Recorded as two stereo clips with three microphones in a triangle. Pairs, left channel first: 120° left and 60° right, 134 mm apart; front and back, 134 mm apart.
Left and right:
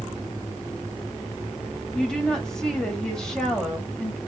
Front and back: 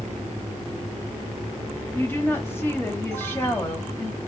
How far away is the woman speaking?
About 1.1 m.